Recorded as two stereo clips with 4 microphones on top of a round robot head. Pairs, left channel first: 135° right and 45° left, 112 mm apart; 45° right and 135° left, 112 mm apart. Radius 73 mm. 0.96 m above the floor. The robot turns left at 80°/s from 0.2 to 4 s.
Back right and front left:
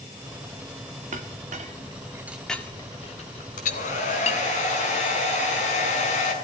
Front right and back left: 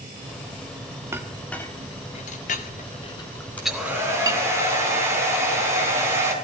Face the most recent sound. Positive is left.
turn(degrees=-160)